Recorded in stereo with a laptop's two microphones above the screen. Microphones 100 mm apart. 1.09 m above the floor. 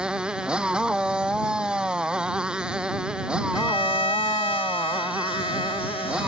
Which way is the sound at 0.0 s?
10° right (ahead or behind).